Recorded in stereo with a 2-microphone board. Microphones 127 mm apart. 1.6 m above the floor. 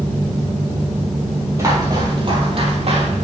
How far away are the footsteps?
About 2.5 m.